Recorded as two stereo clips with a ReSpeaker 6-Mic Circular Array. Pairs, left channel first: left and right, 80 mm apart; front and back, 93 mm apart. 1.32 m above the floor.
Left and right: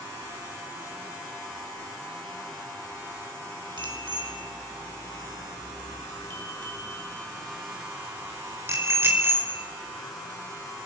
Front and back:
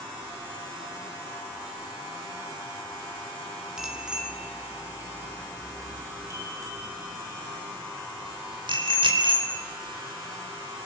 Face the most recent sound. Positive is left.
turn(degrees=-155)